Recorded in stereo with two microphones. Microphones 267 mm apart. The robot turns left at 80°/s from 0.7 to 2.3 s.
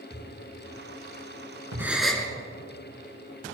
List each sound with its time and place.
0.1 s a thud: 15° left (ahead or behind), 6 m; by 1.9 s 80° right, 6 m
1.8 s a gasp: 10° right (ahead or behind), 1.7 m; by 2.3 s 10° left (ahead or behind), 1.7 m